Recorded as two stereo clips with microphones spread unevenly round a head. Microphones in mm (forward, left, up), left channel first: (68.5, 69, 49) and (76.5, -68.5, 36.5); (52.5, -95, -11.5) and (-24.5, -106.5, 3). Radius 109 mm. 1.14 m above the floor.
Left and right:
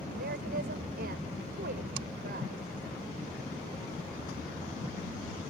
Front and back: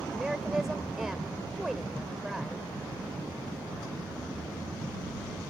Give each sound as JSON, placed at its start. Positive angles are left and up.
{"t": 0.1, "sound": "a woman speaking", "azimuth_deg": -85}